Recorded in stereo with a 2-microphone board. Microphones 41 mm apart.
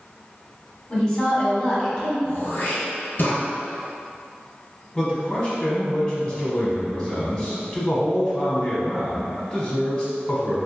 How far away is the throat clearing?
About 1.3 m.